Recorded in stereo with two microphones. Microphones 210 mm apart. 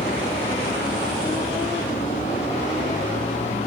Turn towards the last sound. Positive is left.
turn(degrees=30)  # may be behind; listen again after turning